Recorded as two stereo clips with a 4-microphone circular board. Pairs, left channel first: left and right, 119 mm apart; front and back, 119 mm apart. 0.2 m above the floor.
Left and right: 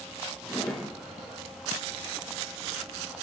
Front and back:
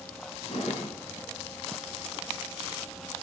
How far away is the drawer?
About 1.5 m.